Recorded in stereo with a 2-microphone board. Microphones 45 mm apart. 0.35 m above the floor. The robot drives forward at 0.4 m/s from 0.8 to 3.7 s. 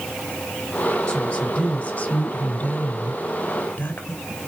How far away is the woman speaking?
About 2.5 m.